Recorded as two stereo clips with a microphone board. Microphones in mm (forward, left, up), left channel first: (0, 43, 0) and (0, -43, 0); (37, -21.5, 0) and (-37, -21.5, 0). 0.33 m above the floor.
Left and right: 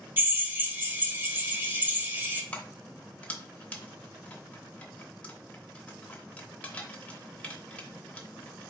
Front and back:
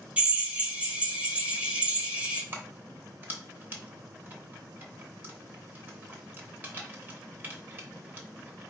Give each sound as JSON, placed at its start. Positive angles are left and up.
{"t": 0.2, "sound": "a drill", "azimuth_deg": -125, "distance_m": 0.8}
{"t": 2.5, "sound": "keys jangling", "azimuth_deg": 150, "distance_m": 0.8}